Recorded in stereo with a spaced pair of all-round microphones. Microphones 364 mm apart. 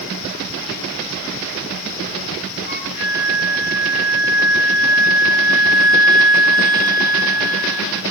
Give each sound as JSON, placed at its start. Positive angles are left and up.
{"t": 2.7, "sound": "a flute", "side_deg": 25, "distance_m": 3.0}